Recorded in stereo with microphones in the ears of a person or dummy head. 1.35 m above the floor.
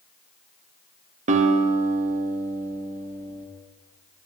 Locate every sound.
1.3 s a guitar: 40° right (ahead or behind), 1.5 m